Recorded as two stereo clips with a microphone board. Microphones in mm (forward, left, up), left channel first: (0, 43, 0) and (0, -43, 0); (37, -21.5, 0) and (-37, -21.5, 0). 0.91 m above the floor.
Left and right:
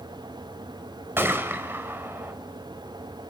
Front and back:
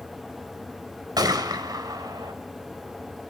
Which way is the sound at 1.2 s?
155° right.